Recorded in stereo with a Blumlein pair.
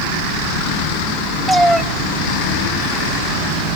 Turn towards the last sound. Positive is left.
turn(degrees=-10)